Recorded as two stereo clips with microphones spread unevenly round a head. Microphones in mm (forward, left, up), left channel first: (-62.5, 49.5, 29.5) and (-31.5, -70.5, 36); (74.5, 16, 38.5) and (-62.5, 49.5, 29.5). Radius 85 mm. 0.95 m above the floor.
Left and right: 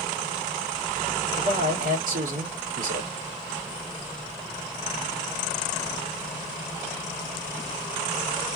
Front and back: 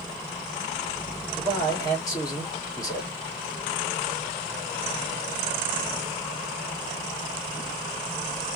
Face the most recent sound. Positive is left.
turn(degrees=-80)